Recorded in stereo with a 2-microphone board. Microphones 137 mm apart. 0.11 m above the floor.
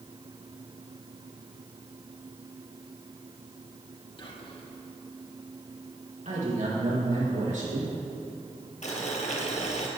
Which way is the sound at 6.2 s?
70° right (ahead or behind).